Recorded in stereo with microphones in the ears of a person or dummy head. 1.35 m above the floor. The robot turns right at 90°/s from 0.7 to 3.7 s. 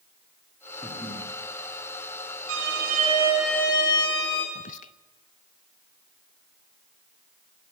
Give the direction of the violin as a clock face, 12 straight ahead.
3 o'clock.